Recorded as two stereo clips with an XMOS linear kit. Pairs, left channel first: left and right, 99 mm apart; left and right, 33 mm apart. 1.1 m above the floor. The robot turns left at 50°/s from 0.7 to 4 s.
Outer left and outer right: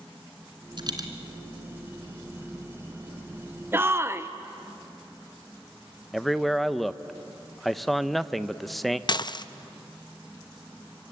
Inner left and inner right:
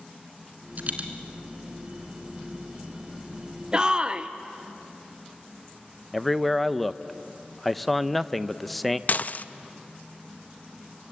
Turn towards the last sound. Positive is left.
turn(degrees=45)  # may be behind; listen again after turning